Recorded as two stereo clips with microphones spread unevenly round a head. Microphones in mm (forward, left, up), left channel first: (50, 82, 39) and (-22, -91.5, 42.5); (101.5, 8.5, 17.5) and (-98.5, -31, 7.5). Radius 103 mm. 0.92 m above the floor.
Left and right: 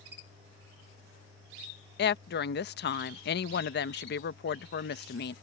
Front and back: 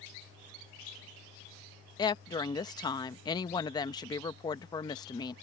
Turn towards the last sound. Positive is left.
turn(degrees=80)